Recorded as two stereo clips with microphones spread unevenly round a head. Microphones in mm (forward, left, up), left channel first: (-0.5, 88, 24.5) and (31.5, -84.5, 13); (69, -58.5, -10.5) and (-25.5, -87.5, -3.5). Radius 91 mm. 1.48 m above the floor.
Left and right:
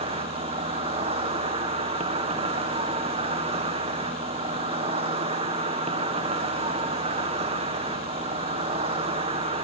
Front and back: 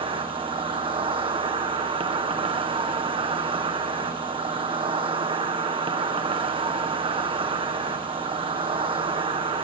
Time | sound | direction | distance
0.0 | an insect | 135° right | 1.8 m